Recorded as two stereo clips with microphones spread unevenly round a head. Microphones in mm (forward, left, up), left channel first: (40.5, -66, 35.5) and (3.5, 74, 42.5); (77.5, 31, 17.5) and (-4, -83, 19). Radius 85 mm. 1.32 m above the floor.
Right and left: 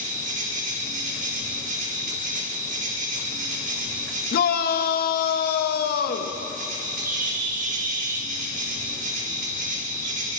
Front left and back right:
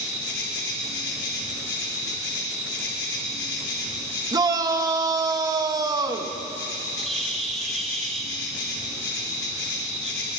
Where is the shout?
60° right, 2 m.